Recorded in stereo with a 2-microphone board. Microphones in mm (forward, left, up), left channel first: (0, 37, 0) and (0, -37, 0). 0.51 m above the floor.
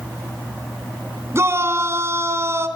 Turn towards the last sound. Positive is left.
turn(degrees=-35)  # may be behind; listen again after turning